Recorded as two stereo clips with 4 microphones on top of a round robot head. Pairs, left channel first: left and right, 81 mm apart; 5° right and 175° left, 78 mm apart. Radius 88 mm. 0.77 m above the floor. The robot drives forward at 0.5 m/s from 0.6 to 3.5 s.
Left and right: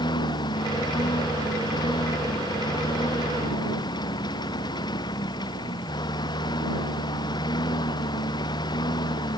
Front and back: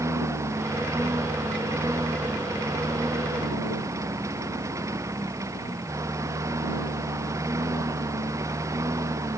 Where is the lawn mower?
120° left.